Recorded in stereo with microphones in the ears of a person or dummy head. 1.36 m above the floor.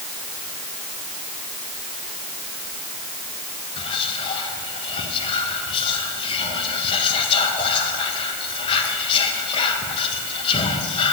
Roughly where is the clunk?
No clunk in this recording.